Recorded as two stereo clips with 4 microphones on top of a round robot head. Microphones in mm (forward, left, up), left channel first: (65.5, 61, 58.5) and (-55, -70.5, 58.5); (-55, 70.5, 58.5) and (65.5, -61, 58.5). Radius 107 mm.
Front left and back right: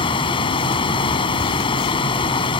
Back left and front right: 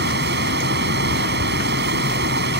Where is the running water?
15° right.